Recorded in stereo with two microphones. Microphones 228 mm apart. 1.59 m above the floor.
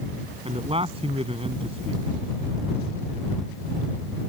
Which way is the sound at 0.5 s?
25° right (ahead or behind).